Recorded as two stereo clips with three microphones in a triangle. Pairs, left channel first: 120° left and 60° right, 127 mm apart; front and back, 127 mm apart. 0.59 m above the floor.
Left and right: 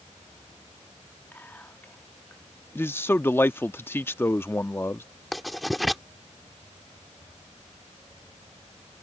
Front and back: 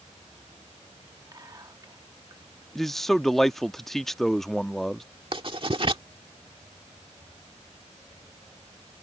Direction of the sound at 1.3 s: Straight behind.